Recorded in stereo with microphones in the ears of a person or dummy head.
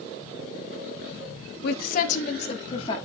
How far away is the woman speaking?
About 1.1 m.